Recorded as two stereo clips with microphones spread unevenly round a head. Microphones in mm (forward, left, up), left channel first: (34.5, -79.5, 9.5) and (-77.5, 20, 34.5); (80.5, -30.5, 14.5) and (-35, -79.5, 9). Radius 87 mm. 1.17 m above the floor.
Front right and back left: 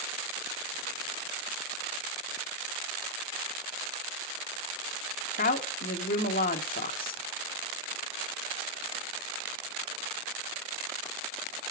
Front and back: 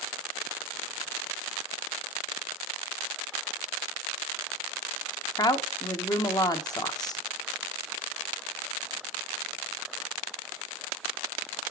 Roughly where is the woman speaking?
Ahead right.